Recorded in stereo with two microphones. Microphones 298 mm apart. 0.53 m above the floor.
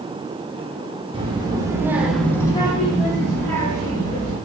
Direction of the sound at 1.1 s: 15° right (ahead or behind).